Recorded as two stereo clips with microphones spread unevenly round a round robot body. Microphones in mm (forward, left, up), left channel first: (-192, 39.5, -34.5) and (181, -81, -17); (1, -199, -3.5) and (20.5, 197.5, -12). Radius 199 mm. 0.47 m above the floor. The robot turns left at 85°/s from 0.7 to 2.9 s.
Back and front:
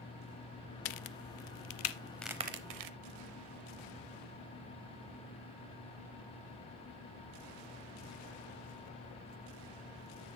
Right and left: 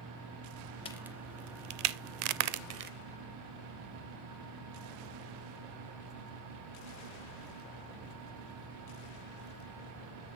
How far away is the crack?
About 0.6 m.